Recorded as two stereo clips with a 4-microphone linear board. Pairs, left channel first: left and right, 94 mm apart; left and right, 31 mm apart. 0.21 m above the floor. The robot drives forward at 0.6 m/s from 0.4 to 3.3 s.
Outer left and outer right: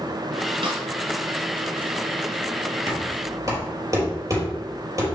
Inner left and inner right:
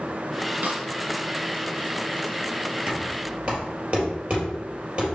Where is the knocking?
40° right (ahead or behind), 3 m; by 5.0 s 35° right (ahead or behind), 3.5 m.